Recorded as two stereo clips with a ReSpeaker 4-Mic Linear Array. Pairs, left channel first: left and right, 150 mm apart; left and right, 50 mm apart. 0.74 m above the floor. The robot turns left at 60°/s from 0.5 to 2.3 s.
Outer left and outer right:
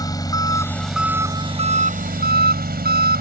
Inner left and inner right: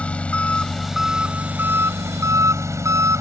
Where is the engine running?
25° left; by 3.2 s 85° right.